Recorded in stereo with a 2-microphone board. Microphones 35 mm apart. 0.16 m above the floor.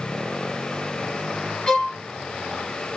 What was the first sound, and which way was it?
A violin, 20° left (ahead or behind).